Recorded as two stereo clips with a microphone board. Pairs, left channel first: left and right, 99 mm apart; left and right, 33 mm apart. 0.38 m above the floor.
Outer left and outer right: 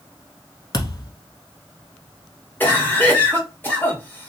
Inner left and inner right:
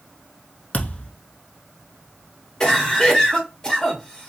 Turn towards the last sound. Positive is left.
turn(degrees=20)  # may be behind; listen again after turning